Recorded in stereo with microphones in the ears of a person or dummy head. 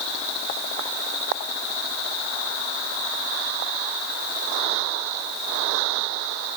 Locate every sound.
Only background noise.